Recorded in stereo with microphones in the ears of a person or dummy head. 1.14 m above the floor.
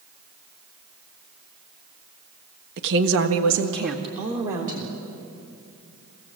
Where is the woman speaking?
50° right (ahead or behind), 1.3 m; by 5.0 s 40° right (ahead or behind), 3 m.